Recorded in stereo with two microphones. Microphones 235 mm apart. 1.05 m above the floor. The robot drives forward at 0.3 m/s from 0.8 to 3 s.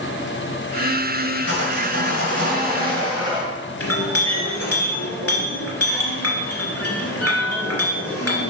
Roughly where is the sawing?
Left.